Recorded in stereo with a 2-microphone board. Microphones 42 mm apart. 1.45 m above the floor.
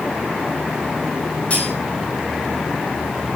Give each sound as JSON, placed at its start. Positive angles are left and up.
{"t": 1.5, "sound": "cutlery clinking", "side_deg": 30, "distance_m": 9.0}